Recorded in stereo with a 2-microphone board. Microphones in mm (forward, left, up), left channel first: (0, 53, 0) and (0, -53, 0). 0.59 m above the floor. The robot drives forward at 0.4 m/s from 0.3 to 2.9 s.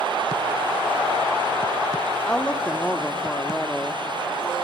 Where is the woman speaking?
10° left (ahead or behind), 1.0 m.